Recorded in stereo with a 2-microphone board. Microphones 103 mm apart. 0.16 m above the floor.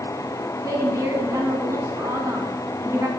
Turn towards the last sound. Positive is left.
turn(degrees=-30)  # may be behind; listen again after turning